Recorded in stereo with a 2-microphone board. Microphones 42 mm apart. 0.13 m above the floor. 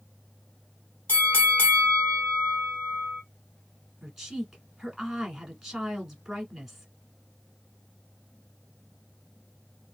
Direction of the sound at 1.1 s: 55° left (ahead or behind).